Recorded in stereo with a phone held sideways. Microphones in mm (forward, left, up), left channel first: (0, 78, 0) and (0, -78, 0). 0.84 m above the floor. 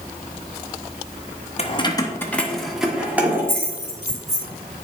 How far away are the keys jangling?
About 0.8 m.